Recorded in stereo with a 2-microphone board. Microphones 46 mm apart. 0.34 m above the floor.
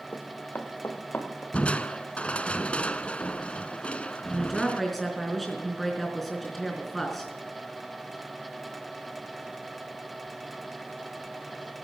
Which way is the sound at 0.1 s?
45° left (ahead or behind).